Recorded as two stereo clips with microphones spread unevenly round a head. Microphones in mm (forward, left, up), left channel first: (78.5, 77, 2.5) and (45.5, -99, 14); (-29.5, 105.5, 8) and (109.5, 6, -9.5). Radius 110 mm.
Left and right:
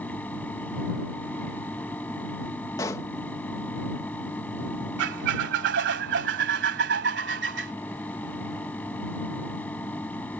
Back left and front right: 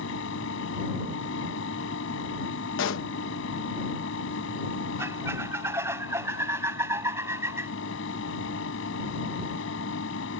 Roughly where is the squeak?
Behind right.